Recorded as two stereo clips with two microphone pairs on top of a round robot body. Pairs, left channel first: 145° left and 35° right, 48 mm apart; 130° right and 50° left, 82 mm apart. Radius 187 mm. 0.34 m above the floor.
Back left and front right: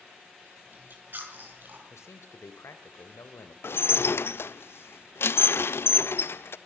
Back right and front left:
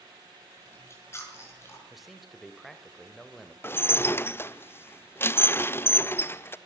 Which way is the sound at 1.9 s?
140° left.